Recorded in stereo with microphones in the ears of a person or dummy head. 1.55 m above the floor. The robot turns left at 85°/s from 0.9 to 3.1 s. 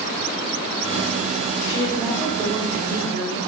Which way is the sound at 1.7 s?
30° left.